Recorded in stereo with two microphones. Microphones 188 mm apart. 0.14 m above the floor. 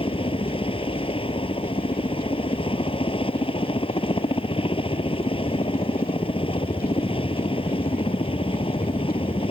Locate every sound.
0.0 s a helicopter: 30° left (ahead or behind)